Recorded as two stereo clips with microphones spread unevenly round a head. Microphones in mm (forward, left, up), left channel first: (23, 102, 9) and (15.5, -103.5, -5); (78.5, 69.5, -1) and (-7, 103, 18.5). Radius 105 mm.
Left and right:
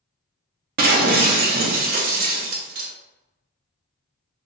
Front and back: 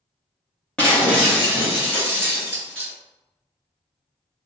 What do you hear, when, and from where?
0.8 s breaking glass: 110° right, 0.5 m